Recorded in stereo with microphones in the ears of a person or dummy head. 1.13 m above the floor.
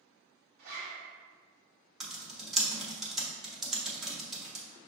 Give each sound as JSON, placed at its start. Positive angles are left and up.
{"t": 0.6, "sound": "a zipper", "side_deg": -55, "distance_m": 1.3}
{"t": 2.0, "sound": "typing on a keyboard", "side_deg": -5, "distance_m": 0.7}